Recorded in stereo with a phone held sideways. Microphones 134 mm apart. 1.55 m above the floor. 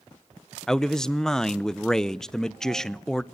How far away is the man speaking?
About 0.7 m.